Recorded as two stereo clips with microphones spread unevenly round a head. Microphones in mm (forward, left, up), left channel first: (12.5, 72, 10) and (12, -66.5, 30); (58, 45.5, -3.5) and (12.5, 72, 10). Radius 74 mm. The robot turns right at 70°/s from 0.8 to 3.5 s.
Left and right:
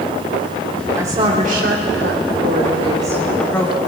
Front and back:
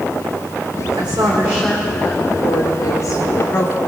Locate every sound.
1.0 s a woman speaking: 165° right, 2.5 m; by 3.8 s 10° left, 2.5 m